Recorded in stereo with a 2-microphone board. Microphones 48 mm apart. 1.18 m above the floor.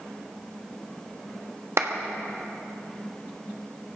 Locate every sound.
1.8 s a clap: 70° right (ahead or behind), 1.4 m